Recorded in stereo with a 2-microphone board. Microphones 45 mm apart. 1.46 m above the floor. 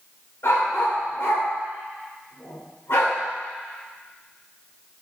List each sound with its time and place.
0.4 s a dog barking: 70° left (ahead or behind), 2.5 m